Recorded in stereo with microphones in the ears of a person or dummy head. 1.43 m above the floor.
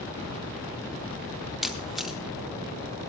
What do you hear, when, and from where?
1.6 s a camera shutter: 5° right (ahead or behind), 0.7 m